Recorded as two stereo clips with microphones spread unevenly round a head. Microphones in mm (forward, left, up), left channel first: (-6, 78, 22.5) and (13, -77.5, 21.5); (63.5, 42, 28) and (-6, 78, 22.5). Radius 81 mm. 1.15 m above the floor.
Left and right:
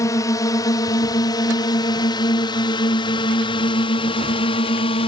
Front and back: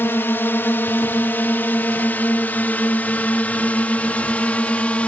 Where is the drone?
30° left; by 5.1 s 45° left.